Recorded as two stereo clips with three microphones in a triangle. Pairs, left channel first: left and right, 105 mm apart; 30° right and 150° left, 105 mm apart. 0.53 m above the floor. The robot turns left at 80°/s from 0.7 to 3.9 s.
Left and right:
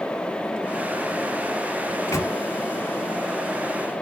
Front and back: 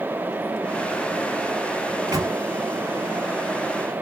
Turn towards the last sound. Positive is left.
turn(degrees=-15)